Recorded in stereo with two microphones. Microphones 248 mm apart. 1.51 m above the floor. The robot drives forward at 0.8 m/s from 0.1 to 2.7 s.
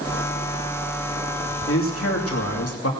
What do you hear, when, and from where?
1.7 s a man speaking: 60° left (ahead or behind), 2.5 m; by 2.9 s 75° left (ahead or behind), 2.5 m